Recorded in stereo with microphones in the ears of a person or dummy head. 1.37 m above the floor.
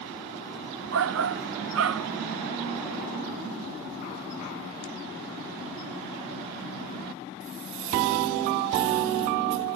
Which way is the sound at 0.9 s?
75° right (ahead or behind).